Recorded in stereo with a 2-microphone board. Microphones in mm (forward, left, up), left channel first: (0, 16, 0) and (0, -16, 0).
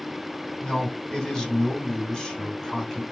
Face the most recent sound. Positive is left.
turn(degrees=15)  # may be behind; listen again after turning